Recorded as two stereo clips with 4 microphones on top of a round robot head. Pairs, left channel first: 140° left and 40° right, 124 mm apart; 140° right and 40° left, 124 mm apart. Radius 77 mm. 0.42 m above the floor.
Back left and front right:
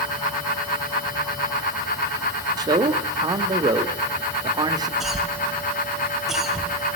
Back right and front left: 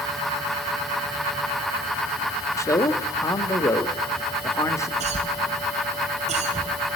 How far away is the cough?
About 3.5 m.